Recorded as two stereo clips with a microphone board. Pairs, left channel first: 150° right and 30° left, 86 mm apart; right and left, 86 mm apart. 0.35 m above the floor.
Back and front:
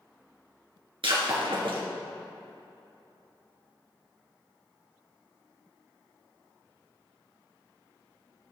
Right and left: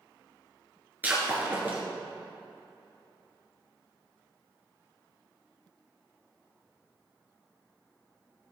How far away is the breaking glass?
About 2.5 m.